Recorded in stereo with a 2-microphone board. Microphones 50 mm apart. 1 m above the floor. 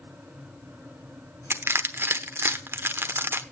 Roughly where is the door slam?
No door slam in this recording.